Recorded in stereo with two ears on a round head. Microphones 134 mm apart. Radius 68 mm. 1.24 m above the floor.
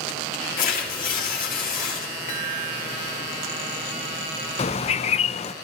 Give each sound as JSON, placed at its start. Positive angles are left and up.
{"t": 0.6, "sound": "tearing paper", "side_deg": 55, "distance_m": 4.0}
{"t": 2.3, "sound": "a chime", "side_deg": 50, "distance_m": 3.5}
{"t": 4.6, "sound": "a bird", "side_deg": 40, "distance_m": 0.6}